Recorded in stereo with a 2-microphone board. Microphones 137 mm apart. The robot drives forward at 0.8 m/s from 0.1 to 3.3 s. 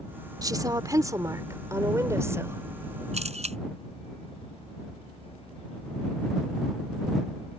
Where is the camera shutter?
50° right (ahead or behind).